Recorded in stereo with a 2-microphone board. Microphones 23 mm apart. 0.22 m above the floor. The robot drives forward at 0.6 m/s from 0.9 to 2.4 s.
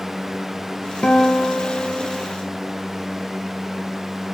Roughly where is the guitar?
Left.